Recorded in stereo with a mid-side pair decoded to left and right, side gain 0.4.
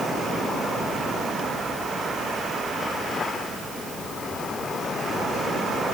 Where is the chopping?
No chopping in this recording.